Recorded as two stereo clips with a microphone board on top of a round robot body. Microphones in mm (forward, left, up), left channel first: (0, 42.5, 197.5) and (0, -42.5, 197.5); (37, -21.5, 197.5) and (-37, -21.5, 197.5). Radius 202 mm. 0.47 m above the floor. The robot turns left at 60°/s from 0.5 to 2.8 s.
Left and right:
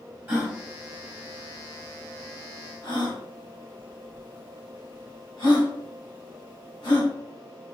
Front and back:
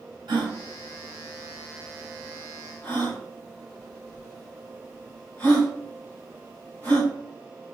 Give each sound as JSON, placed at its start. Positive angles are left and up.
{"t": 0.3, "sound": "a gasp", "azimuth_deg": -160, "distance_m": 2.5}